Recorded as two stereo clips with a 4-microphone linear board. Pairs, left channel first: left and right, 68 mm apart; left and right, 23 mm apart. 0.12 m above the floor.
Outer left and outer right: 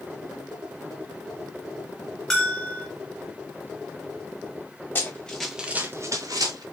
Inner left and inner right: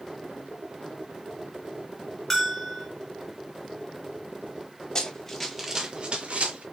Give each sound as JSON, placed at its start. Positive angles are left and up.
{"t": 2.3, "sound": "a bell", "side_deg": 5, "distance_m": 2.0}
{"t": 5.0, "sound": "running footsteps", "side_deg": 25, "distance_m": 1.6}